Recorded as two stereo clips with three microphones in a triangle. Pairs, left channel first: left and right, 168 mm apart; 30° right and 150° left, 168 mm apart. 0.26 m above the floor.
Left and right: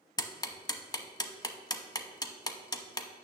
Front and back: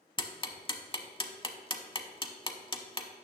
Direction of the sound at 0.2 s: 25° left.